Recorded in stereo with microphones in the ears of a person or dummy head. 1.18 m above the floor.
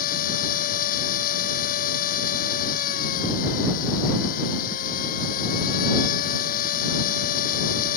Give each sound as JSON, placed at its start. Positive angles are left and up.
{"t": 0.0, "sound": "a machine running", "side_deg": 50}